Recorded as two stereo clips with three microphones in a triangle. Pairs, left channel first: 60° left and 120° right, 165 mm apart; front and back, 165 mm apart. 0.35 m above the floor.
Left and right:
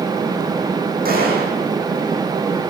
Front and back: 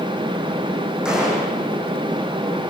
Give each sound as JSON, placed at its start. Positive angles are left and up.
{"t": 1.1, "sound": "a gunshot", "azimuth_deg": -95, "distance_m": 5.0}